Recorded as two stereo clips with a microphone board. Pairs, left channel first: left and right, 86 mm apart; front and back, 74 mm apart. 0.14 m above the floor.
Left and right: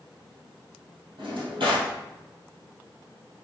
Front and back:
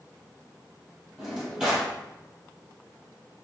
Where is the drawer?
100° right, 2.0 m.